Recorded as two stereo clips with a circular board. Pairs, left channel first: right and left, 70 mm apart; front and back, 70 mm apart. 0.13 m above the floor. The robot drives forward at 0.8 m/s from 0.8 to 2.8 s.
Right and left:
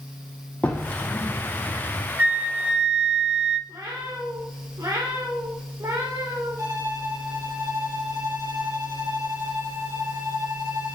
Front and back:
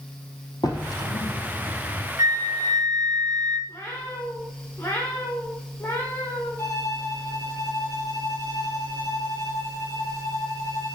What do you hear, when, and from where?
0.6 s a drawer: 20° right, 3.5 m; by 2.1 s 30° right, 2.5 m
2.2 s a flute: 160° left, 0.7 m; by 3.6 s 165° left, 1.1 m
3.7 s a cat meowing: 55° left, 4 m
6.6 s a violin: 50° left, 5 m